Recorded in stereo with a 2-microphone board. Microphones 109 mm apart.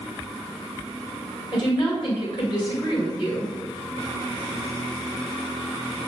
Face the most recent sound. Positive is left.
turn(degrees=50)  # may be behind; listen again after turning